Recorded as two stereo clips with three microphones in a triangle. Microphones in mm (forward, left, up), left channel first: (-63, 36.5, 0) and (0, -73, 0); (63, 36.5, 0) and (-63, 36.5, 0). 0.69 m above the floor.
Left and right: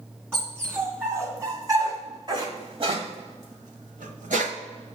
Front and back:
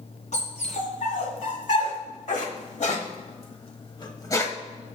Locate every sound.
0.3 s a dog barking: 15° left, 2.5 m; by 4.5 s 70° right, 1.1 m